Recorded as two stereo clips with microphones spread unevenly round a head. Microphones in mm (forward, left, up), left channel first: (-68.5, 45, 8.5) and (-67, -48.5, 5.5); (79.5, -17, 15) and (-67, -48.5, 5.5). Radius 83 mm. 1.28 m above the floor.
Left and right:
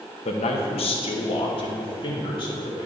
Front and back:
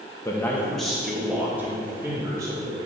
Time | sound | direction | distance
0.2 | a man speaking | 85° left | 0.9 m